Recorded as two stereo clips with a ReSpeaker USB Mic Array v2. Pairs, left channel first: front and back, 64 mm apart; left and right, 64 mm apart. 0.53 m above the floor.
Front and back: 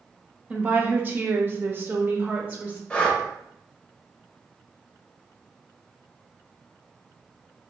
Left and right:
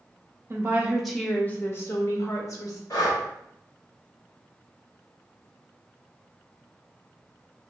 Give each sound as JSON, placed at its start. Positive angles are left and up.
{"t": 0.5, "sound": "a woman speaking", "azimuth_deg": -120, "distance_m": 0.8}
{"t": 2.9, "sound": "breathing", "azimuth_deg": 70, "distance_m": 0.9}